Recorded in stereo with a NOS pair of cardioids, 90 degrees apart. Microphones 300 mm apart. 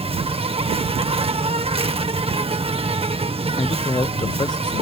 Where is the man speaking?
15° left.